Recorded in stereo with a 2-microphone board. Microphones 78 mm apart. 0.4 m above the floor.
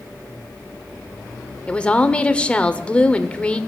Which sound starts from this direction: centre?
A woman speaking, at 1.7 s.